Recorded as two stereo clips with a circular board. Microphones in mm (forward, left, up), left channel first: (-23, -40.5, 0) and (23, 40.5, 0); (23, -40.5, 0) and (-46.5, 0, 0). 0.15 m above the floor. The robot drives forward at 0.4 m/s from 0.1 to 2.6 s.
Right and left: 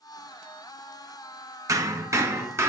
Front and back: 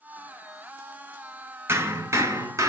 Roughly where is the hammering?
Left.